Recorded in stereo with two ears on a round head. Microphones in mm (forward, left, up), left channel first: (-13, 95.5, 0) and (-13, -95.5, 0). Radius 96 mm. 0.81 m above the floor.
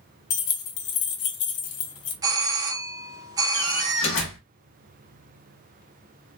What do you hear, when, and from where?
0.3 s keys jangling: 70° left (ahead or behind), 0.8 m
2.2 s a doorbell: 15° right (ahead or behind), 0.7 m
3.5 s a door slam: 60° left (ahead or behind), 1.3 m